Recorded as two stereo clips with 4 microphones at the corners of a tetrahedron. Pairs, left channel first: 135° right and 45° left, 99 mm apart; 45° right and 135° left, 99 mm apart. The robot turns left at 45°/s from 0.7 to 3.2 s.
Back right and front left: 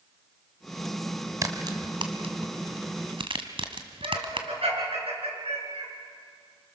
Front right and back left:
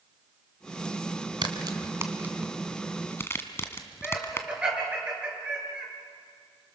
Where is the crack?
100° left, 2.0 m; by 4.5 s 20° left, 2.0 m.